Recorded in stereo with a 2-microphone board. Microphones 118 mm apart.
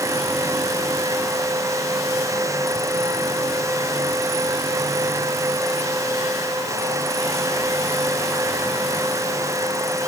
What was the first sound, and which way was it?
Only background noise.